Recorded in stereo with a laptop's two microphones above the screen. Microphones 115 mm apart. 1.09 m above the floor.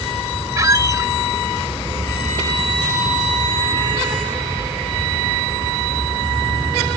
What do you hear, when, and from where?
0.6 s a squeak: 30° right (ahead or behind)